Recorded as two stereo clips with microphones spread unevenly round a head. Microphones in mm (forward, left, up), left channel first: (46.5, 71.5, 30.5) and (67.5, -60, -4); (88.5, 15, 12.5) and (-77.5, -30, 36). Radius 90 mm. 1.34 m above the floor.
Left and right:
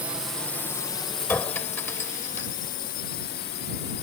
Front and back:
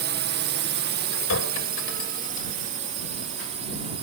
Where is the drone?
150° right; by 4.0 s 135° left.